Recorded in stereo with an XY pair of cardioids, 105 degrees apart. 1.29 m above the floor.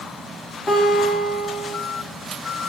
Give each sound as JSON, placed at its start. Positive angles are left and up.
{"t": 0.7, "sound": "a guitar", "azimuth_deg": 30, "distance_m": 1.8}